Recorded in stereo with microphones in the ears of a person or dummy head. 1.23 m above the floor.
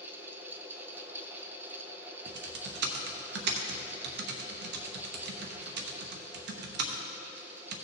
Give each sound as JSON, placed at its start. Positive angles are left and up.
{"t": 0.0, "sound": "a fan", "side_deg": -15, "distance_m": 0.8}
{"t": 2.3, "sound": "typing on a keyboard", "side_deg": -65, "distance_m": 0.9}